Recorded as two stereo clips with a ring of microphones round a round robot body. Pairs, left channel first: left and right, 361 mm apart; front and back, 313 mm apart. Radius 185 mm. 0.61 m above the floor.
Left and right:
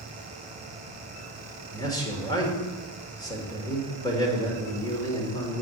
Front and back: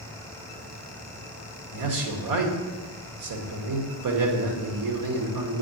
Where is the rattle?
I don't hear a rattle.